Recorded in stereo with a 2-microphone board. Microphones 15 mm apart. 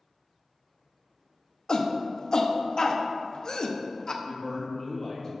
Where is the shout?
45° left (ahead or behind), 0.6 m.